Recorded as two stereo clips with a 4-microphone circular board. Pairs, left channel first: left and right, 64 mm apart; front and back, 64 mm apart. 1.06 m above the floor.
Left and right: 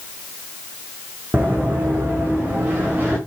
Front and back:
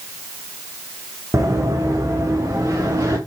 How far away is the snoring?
No snoring in this recording.